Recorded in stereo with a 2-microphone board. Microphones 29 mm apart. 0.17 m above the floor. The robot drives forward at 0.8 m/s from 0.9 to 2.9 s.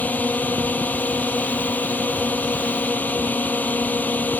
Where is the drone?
70° left (ahead or behind).